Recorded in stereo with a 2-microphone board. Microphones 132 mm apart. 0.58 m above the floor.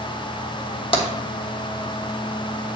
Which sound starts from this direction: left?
Tapping, at 0.9 s.